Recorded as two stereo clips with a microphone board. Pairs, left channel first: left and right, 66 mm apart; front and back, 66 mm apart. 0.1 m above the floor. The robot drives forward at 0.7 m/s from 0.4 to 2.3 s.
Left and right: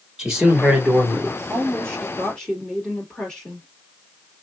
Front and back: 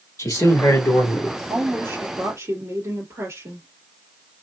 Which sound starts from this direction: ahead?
A man speaking, at 0.2 s.